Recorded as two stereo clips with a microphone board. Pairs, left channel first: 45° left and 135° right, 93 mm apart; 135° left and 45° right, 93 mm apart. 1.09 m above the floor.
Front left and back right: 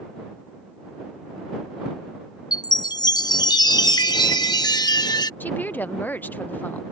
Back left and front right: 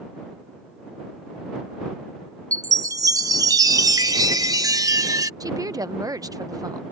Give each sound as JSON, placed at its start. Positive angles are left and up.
{"t": 2.5, "sound": "a chime", "azimuth_deg": 5}
{"t": 5.4, "sound": "a woman speaking", "azimuth_deg": -15}